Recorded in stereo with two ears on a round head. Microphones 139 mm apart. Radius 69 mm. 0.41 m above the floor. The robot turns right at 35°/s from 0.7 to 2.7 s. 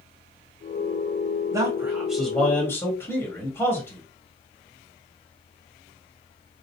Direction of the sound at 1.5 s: 25° right.